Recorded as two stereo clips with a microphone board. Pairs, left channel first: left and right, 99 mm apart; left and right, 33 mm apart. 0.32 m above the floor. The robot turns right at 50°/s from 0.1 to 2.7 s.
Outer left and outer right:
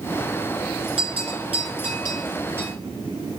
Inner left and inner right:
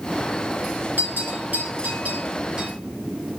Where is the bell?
70° right (ahead or behind), 2.5 m; by 2.7 s 20° right (ahead or behind), 2.5 m.